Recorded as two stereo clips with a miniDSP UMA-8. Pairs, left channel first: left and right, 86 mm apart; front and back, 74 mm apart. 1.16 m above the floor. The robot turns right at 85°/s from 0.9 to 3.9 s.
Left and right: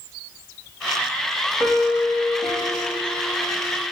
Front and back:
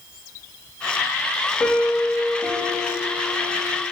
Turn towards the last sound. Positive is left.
turn(degrees=170)